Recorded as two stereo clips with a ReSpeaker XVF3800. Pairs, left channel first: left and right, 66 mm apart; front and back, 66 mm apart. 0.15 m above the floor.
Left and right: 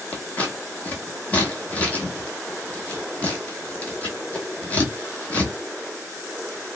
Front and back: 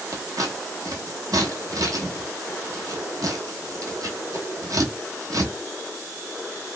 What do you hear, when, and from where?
0.1 s scissors: 155° left, 0.9 m